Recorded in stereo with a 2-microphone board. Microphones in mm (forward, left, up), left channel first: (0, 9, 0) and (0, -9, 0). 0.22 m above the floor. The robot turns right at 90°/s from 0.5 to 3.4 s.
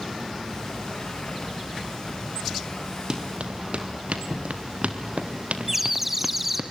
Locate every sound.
3.1 s running footsteps: 35° right (ahead or behind), 4 m; by 6.7 s 60° right (ahead or behind), 2.5 m
5.7 s a bird: 10° right (ahead or behind), 2 m